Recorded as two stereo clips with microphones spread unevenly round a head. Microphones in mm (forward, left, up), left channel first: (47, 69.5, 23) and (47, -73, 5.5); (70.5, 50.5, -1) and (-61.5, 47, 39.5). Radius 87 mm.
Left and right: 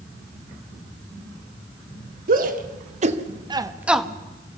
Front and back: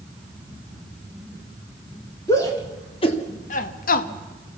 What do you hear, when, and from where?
2.3 s a shout: 70° right, 2 m; by 4.1 s 5° left, 1.2 m